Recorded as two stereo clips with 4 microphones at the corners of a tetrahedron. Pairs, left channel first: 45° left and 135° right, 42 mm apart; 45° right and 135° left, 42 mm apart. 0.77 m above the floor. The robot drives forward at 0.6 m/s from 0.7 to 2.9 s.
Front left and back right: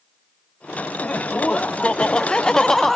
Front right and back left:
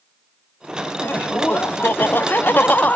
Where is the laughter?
15° right, 1.7 m; by 3.0 s 40° right, 0.7 m.